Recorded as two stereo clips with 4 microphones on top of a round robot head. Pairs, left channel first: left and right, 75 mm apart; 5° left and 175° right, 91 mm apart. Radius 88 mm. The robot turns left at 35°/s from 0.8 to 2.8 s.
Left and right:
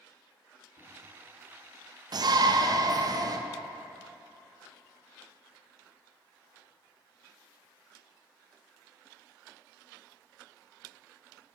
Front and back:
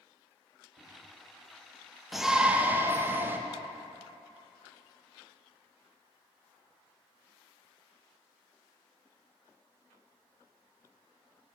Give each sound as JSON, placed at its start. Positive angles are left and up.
{"t": 0.8, "sound": "a microwave", "azimuth_deg": 115, "distance_m": 1.4}
{"t": 2.1, "sound": "a shout", "azimuth_deg": -85, "distance_m": 0.5}